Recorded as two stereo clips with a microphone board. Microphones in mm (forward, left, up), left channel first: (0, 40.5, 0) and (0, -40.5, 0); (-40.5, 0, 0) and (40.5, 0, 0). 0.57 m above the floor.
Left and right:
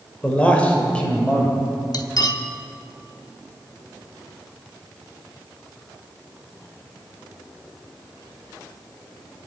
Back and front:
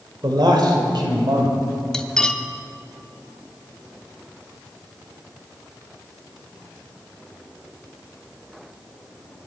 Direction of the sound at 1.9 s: 100° left.